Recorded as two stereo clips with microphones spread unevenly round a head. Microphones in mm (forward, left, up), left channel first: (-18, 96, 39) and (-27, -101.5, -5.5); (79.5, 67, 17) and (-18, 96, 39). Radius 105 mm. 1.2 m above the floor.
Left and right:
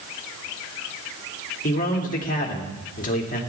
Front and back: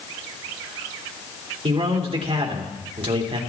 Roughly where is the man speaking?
Behind left.